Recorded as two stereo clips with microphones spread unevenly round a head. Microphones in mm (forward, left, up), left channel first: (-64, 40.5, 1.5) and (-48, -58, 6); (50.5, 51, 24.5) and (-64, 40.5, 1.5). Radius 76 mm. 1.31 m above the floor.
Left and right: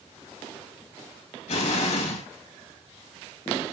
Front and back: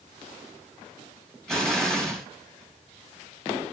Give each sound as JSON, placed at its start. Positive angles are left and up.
{"t": 1.5, "sound": "an explosion", "azimuth_deg": 90, "distance_m": 2.5}